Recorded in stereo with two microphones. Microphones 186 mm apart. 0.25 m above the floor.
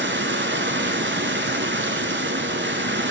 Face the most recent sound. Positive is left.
turn(degrees=-80)